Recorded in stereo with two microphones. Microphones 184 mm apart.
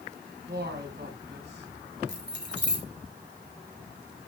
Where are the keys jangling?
70° right (ahead or behind), 3.5 m.